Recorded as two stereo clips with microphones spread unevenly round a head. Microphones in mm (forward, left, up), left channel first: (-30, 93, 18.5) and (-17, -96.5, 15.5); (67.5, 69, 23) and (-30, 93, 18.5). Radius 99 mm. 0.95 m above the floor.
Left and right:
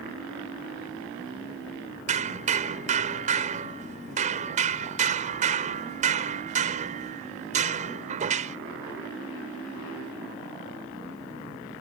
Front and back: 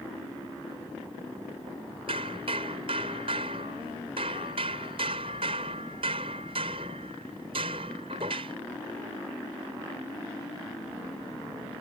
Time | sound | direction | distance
2.1 | hammering | 135° right | ?